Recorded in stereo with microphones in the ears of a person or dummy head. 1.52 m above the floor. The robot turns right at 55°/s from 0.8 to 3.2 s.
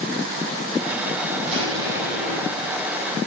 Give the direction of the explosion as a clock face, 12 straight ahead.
2 o'clock.